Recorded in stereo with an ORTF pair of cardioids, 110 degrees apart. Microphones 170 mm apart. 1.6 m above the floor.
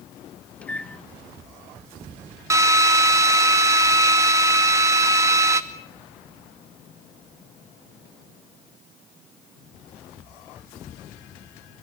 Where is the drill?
20° right, 2 m.